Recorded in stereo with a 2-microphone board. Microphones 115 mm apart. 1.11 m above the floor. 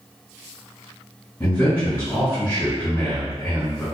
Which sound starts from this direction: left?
A man speaking, at 1.4 s.